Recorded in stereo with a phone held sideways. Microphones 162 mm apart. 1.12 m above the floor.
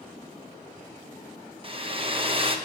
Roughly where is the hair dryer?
Right.